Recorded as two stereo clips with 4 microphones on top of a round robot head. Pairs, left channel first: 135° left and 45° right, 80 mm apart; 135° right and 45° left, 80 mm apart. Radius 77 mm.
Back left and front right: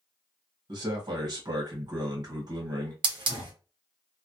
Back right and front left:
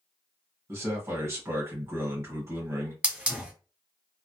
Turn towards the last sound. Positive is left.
turn(degrees=-30)